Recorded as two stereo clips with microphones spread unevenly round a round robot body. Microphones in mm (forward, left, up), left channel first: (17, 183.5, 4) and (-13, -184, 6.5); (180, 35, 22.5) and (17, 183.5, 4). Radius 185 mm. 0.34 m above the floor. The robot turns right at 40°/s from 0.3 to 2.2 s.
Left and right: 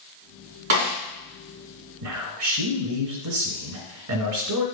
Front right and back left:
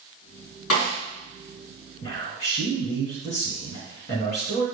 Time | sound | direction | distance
0.7 | a snare drum | 80° right | 4 m
2.0 | a man speaking | 110° right | 1.7 m